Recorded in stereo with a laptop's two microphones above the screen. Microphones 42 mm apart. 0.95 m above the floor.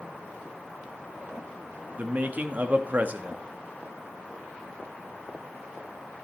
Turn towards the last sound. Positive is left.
turn(degrees=-40)  # may be behind; listen again after turning